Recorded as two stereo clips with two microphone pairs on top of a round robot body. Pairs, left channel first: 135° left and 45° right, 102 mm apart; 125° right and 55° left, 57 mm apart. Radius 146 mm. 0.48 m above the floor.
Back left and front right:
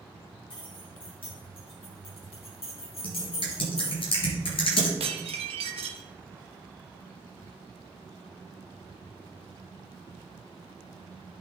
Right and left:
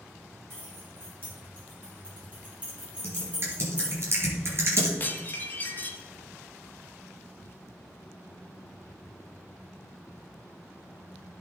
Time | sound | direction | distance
0.5 | keys jangling | 100° left | 4.5 m
3.0 | typing on a keyboard | 100° left | 3.5 m
5.0 | dishes clattering | 65° right | 1.7 m